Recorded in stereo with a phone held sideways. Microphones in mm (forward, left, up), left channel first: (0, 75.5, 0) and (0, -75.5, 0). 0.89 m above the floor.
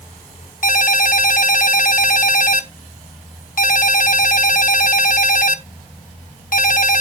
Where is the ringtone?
60° left (ahead or behind), 0.9 m.